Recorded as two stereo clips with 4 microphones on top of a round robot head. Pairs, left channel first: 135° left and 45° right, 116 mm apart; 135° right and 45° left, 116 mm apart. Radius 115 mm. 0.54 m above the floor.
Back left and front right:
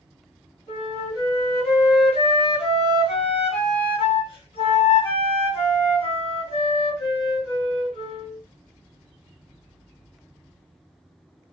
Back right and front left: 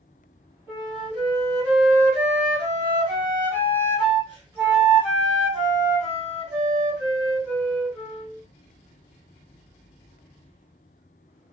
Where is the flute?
115° left, 1.9 m.